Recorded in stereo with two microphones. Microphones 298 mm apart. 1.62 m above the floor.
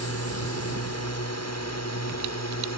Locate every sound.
0.0 s a drone: 55° left (ahead or behind); by 2.8 s 60° left (ahead or behind)